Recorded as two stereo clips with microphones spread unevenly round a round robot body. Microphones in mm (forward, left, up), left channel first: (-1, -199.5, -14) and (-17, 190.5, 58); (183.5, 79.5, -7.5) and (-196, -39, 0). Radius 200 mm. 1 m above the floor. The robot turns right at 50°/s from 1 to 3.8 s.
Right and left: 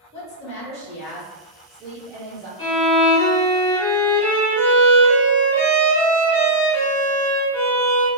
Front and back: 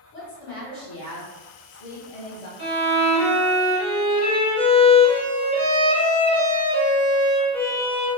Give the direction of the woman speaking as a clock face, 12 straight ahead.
1 o'clock.